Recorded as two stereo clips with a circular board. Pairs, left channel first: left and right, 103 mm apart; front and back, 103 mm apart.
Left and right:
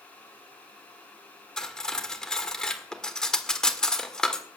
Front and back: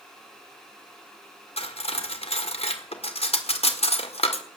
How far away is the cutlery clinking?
About 1.5 m.